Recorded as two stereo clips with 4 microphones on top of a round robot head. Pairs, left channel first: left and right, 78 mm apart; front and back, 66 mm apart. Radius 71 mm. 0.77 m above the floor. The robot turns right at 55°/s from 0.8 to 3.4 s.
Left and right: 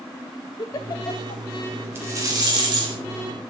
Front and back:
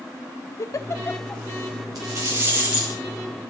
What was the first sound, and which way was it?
A giggle, 40° left.